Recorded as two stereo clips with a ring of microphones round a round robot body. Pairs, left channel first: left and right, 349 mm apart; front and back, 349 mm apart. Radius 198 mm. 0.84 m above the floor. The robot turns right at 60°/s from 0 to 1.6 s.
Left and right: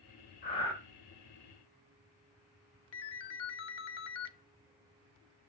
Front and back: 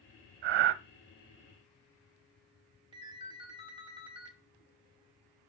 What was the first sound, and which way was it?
Breathing, 160° left.